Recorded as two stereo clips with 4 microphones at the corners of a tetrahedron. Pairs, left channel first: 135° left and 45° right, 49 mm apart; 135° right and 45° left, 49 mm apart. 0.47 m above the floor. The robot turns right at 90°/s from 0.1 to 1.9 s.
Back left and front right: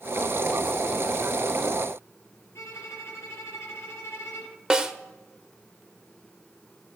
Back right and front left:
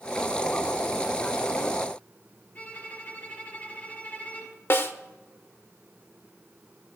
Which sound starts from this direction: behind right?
A snare drum, at 4.7 s.